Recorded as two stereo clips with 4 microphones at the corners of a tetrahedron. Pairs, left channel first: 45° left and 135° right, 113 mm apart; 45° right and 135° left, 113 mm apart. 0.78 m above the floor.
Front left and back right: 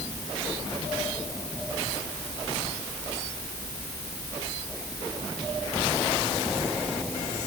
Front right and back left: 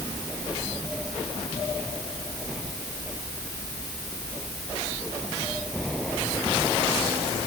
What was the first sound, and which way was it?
Only background noise.